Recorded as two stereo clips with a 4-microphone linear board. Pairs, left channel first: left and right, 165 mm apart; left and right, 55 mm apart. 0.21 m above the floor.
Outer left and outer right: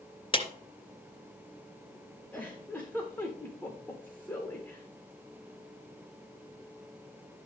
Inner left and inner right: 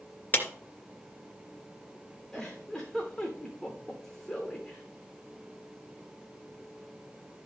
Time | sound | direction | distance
0.3 | a clap | 35° left (ahead or behind) | 2.5 m
2.3 | a giggle | 10° left (ahead or behind) | 3.5 m